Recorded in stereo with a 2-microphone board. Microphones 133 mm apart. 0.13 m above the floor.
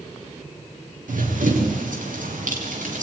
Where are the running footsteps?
85° right, 6.5 m; by 3.0 s 75° right (ahead or behind), 6.5 m.